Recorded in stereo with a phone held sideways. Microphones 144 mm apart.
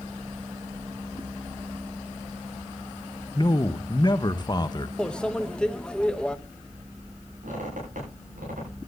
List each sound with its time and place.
3.4 s a man speaking: 35° left (ahead or behind), 0.8 m
5.0 s a microwave: 5° left (ahead or behind), 0.7 m
7.4 s a squeak: 85° right, 8.5 m